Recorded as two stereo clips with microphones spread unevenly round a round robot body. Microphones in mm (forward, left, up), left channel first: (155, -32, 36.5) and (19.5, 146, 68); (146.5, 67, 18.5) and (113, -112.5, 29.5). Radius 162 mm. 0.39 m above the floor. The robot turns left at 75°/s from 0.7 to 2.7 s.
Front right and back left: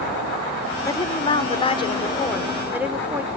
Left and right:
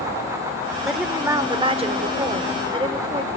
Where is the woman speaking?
5° right, 1.5 m; by 3.3 s 140° right, 1.5 m.